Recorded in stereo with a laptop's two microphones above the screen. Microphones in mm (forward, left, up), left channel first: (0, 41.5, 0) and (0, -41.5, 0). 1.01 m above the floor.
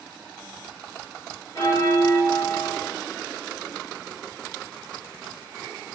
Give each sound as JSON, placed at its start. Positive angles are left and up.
{"t": 1.6, "sound": "a bell", "side_deg": 40, "distance_m": 1.1}